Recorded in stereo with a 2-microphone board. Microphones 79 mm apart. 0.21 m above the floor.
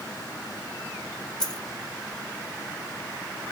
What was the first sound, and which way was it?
A dropped coin, 10° left (ahead or behind).